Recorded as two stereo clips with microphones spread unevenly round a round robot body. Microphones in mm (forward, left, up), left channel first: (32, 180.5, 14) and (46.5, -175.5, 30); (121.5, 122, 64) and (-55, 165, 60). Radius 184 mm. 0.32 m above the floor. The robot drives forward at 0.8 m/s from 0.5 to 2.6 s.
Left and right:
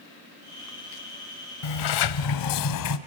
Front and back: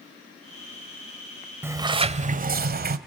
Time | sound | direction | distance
1.6 | a sliding door | 90° left | 1.0 m